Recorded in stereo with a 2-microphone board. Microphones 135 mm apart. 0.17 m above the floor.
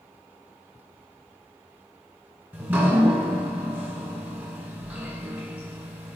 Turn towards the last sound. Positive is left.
turn(degrees=-15)  # may be behind; listen again after turning